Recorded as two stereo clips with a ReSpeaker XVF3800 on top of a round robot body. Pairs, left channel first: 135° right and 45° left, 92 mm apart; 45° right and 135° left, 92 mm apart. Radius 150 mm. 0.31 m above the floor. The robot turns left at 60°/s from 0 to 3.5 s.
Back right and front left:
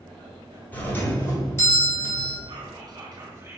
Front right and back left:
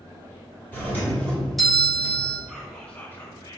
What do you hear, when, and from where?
0.7 s a doorbell: 85° right, 1.3 m; by 2.4 s 175° left, 1.3 m
2.5 s whispering: 50° left, 1.6 m; by 3.6 s 15° right, 1.6 m